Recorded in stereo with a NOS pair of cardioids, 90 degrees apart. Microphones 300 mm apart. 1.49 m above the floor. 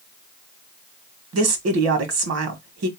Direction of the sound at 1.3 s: 55° right.